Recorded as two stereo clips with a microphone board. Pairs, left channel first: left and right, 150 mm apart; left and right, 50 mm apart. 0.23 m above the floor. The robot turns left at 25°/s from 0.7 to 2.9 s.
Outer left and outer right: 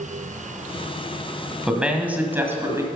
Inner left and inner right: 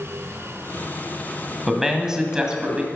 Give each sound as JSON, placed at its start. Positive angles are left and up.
{"t": 1.7, "sound": "a man speaking", "side_deg": -5, "distance_m": 1.7}